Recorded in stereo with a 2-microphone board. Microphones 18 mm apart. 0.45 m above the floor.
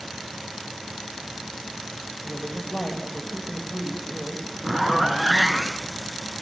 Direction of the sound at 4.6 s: 20° right (ahead or behind).